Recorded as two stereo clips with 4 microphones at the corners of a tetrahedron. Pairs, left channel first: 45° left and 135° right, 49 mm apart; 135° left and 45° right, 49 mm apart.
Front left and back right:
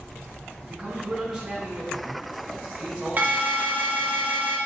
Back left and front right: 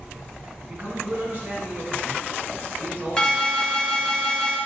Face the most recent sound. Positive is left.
turn(degrees=-160)